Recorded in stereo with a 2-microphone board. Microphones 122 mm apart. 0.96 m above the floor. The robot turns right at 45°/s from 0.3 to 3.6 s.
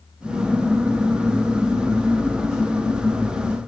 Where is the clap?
I don't hear a clap.